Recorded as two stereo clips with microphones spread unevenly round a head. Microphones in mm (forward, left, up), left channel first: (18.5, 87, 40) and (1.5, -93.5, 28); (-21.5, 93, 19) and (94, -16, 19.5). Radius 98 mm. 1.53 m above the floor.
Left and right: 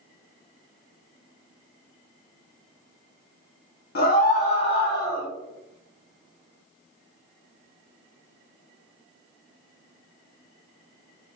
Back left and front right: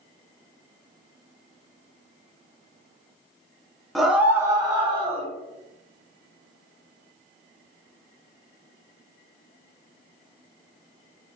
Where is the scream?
45° left, 1.0 m; by 5.3 s 10° left, 1.5 m.